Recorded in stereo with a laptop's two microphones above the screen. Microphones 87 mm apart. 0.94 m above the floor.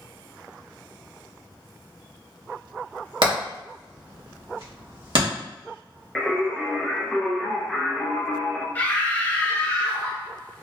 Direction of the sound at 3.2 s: 70° right (ahead or behind).